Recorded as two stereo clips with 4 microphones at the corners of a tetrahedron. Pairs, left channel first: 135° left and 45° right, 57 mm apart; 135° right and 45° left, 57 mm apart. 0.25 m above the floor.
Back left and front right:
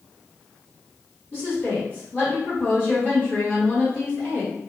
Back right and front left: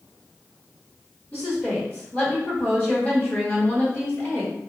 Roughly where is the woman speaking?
Behind.